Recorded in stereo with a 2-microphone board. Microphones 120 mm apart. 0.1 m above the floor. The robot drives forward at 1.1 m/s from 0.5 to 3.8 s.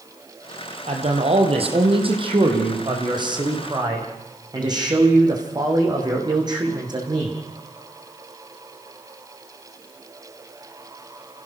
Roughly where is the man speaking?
Right.